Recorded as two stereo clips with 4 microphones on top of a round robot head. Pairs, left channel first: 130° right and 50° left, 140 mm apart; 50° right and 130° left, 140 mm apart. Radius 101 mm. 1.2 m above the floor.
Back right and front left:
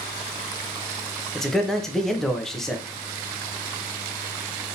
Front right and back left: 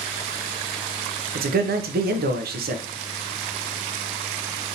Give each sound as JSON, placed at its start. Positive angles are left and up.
{"t": 1.4, "sound": "a man speaking", "azimuth_deg": 140, "distance_m": 0.6}